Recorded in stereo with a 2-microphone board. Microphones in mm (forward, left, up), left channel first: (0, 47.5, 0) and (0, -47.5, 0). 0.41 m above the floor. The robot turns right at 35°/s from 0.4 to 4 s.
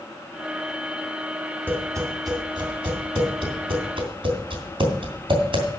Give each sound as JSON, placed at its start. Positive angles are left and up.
{"t": 1.7, "sound": "tapping", "side_deg": -20, "distance_m": 2.5}